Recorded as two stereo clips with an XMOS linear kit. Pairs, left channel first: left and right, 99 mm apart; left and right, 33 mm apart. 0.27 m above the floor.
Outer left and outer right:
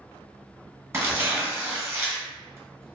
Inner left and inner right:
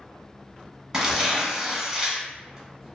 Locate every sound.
0.9 s tearing paper: 25° right (ahead or behind), 0.8 m